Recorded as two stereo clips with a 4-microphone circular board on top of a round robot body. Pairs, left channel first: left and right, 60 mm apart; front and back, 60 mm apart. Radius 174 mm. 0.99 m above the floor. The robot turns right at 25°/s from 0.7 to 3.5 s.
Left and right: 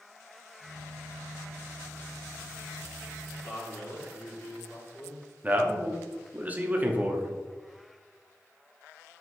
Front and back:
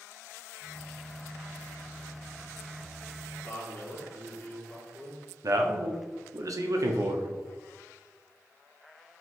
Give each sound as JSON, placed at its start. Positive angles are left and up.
{"t": 3.4, "sound": "a man speaking", "azimuth_deg": 60, "distance_m": 1.9}
{"t": 5.4, "sound": "a man speaking", "azimuth_deg": -150, "distance_m": 0.7}